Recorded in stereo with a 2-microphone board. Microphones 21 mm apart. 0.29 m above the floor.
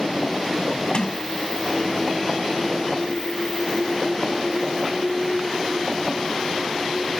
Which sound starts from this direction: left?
A sliding door, at 0.9 s.